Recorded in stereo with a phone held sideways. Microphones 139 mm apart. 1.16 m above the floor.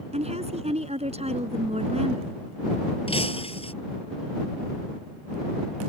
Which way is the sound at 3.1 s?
50° left (ahead or behind).